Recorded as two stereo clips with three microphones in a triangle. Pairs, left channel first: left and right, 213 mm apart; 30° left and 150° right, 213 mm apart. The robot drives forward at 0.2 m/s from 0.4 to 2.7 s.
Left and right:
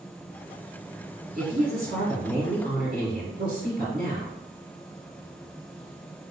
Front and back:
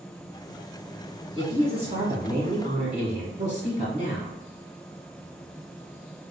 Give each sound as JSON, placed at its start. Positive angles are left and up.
{"t": 1.4, "sound": "a woman speaking", "azimuth_deg": -95, "distance_m": 1.4}